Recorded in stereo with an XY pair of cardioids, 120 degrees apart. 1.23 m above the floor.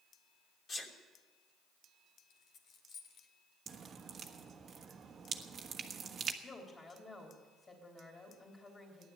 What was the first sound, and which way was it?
A sneeze, 35° left.